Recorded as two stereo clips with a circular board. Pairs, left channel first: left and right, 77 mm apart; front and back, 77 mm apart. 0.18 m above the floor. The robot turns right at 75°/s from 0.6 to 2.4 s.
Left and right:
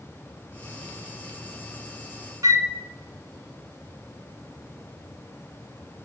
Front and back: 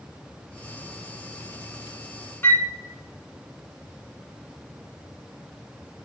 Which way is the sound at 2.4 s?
60° right.